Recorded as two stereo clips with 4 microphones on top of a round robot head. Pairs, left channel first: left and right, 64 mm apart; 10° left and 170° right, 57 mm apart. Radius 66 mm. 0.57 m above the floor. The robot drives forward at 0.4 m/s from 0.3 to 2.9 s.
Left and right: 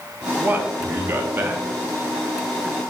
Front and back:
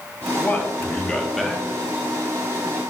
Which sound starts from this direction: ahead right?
A man speaking, at 0.4 s.